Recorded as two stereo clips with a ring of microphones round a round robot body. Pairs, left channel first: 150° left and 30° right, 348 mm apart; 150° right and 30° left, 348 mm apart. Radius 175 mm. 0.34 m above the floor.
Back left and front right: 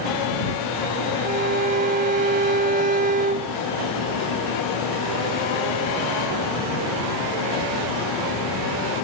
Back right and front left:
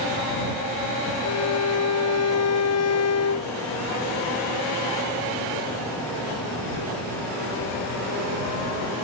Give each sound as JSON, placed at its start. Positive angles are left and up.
{"t": 1.2, "sound": "a violin", "azimuth_deg": -100}